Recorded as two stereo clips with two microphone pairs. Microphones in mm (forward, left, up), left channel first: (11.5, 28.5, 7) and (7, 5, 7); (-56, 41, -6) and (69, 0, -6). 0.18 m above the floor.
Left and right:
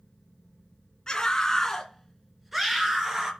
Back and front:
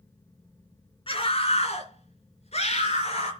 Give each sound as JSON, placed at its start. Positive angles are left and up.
{"t": 1.1, "sound": "a scream", "azimuth_deg": 135, "distance_m": 2.5}